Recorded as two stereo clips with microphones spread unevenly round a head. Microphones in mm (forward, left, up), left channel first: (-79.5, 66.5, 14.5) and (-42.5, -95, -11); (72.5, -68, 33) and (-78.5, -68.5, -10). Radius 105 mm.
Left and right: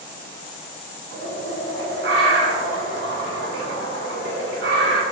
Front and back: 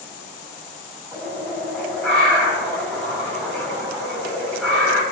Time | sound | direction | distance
1.1 | a bird | 75° right | 5 m